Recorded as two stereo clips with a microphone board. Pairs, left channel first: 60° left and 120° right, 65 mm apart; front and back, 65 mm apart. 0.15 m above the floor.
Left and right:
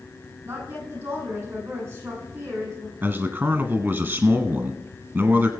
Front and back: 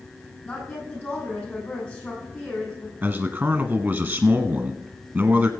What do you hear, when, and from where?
0.5 s a woman speaking: 65° right, 7 m
3.0 s a man speaking: 145° right, 1.3 m